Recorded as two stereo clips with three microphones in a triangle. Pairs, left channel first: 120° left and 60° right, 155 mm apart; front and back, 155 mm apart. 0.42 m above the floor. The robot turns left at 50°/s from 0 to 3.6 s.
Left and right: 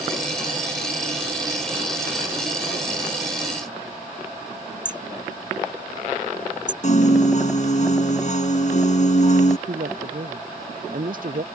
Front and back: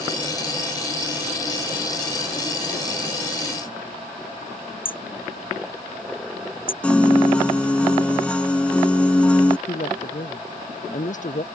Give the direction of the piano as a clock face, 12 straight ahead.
9 o'clock.